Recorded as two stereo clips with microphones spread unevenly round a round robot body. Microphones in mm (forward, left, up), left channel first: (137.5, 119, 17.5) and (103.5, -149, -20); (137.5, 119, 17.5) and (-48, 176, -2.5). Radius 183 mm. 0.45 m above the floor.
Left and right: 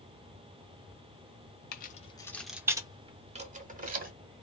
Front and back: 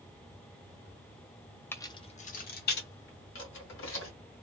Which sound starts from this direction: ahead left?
Keys jangling, at 1.7 s.